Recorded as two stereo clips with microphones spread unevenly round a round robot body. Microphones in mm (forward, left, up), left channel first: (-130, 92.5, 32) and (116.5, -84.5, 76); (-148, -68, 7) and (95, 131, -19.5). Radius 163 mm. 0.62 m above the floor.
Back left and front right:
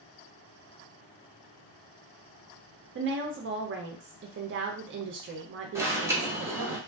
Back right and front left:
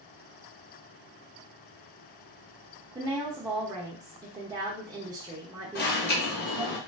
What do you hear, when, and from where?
3.0 s a woman speaking: 15° right, 0.6 m
5.8 s an alarm: 125° right, 1.0 m